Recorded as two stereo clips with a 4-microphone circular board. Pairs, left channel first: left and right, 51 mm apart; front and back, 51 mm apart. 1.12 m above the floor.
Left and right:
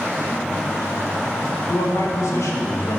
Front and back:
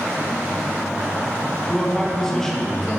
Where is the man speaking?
80° left, 1.2 m.